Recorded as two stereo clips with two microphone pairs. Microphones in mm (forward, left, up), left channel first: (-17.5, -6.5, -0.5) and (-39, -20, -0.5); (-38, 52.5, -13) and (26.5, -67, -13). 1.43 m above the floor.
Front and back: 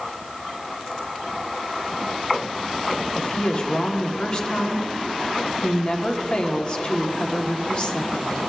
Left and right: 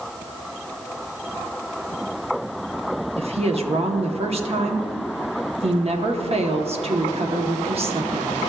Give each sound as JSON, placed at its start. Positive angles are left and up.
{"t": 3.2, "sound": "a woman speaking", "azimuth_deg": -20, "distance_m": 0.9}